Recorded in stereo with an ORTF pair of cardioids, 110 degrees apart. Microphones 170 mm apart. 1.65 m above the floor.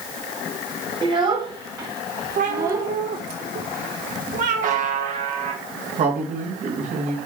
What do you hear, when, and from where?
1.0 s a child speaking: 30° right, 4 m; by 2.9 s 20° right, 4.5 m
2.4 s a cat meowing: 60° right, 2.5 m
4.6 s a buzzer: 50° right, 2.5 m
6.0 s a man speaking: 50° right, 3.5 m